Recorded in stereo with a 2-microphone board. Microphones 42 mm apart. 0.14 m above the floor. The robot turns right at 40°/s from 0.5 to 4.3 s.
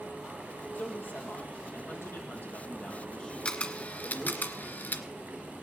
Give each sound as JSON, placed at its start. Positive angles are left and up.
{"t": 0.8, "sound": "a man speaking", "azimuth_deg": 65, "distance_m": 4.0}
{"t": 3.5, "sound": "a camera shutter", "side_deg": 30, "distance_m": 1.5}